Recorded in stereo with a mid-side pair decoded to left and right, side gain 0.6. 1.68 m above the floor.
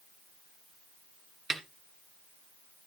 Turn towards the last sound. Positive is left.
turn(degrees=-25)